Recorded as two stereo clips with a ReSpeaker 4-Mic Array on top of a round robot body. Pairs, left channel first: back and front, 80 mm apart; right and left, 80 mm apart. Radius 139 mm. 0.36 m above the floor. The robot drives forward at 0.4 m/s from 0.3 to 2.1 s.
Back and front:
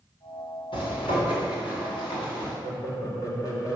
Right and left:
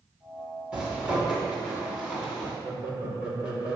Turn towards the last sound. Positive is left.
turn(degrees=160)